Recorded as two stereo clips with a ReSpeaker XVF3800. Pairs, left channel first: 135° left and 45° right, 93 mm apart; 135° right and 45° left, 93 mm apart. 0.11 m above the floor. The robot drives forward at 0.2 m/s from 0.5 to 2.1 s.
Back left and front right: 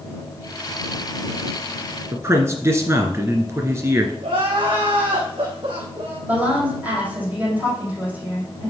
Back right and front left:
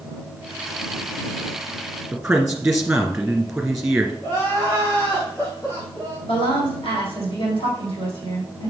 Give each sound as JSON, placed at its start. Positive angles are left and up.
{"t": 2.1, "sound": "a man speaking", "azimuth_deg": -30, "distance_m": 1.7}
{"t": 4.2, "sound": "crying", "azimuth_deg": -70, "distance_m": 4.0}
{"t": 6.3, "sound": "a woman speaking", "azimuth_deg": -120, "distance_m": 4.5}